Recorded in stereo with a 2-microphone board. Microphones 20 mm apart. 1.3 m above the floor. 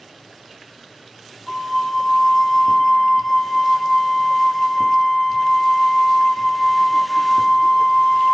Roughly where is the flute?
Right.